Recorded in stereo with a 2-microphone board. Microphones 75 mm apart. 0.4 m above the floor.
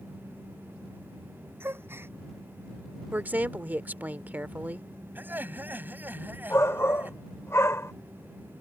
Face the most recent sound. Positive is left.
turn(degrees=40)  # may be behind; listen again after turning